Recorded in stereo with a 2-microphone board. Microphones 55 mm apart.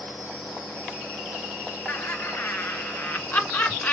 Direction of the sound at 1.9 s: 40° left (ahead or behind).